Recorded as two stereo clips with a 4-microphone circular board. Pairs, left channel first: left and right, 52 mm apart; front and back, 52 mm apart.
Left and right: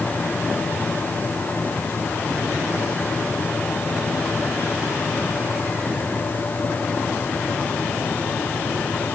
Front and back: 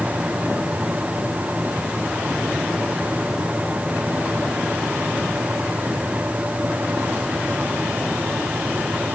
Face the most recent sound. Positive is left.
No sound to turn to.